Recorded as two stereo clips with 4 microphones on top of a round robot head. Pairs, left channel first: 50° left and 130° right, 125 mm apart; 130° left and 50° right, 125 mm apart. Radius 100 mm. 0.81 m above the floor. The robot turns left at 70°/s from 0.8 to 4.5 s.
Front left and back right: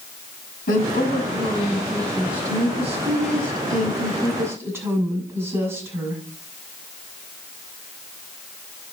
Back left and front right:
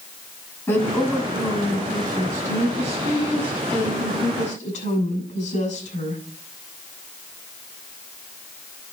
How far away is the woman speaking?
About 7.5 m.